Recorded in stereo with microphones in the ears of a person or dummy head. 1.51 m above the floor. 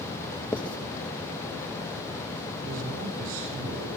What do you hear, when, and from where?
0.5 s writing: 5° left (ahead or behind), 0.8 m
2.6 s a man speaking: 85° right, 5.5 m